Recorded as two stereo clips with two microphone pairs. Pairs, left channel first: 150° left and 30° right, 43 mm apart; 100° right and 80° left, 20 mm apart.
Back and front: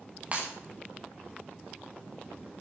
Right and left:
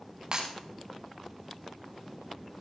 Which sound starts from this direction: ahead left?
Breaking glass, at 0.3 s.